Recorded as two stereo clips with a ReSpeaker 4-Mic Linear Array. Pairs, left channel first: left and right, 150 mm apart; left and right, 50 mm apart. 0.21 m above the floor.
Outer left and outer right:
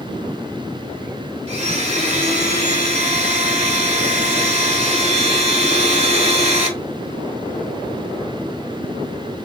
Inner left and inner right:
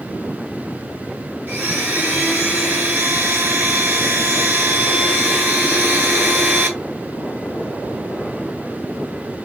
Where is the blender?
45° right (ahead or behind), 1.2 m.